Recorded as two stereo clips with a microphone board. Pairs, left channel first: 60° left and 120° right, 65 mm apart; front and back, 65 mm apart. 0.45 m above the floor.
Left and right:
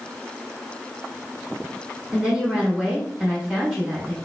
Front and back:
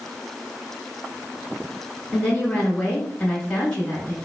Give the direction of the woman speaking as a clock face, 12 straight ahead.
2 o'clock.